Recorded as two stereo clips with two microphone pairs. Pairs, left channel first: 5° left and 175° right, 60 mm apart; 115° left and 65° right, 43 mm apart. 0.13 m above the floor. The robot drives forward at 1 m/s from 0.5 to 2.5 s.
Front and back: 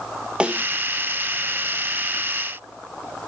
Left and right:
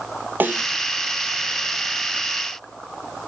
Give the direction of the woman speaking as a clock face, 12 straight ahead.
I don't hear a woman speaking.